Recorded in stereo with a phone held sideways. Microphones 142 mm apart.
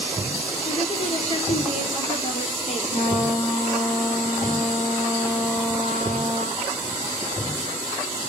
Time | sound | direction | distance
0.7 | a woman speaking | 50° left (ahead or behind) | 3 m
2.9 | a trumpet | 65° left (ahead or behind) | 7 m